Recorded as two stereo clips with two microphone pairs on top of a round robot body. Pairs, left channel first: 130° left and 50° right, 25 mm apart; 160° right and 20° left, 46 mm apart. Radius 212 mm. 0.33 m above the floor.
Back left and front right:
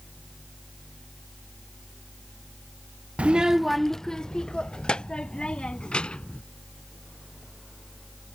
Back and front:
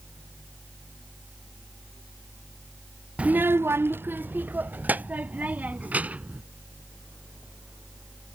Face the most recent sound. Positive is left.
turn(degrees=80)